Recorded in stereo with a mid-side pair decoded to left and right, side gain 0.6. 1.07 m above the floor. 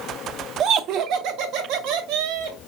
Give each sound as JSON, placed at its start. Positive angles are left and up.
{"t": 0.6, "sound": "laughter", "azimuth_deg": -55, "distance_m": 0.7}